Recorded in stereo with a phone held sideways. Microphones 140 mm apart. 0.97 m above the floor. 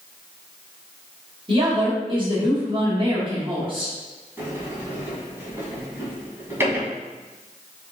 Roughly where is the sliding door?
Centre.